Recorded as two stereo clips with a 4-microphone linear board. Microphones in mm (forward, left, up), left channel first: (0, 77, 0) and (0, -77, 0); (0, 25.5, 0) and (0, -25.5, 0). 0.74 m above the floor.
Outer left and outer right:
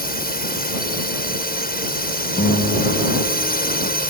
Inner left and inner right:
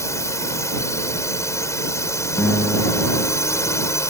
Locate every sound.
0.0 s a drone: 65° left (ahead or behind)
2.4 s a guitar: 50° left (ahead or behind)